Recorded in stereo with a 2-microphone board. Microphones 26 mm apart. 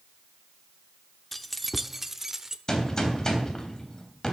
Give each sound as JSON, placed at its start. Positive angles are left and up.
{"t": 1.3, "sound": "keys jangling", "side_deg": 10, "distance_m": 0.6}
{"t": 2.7, "sound": "a gunshot", "side_deg": 20, "distance_m": 3.0}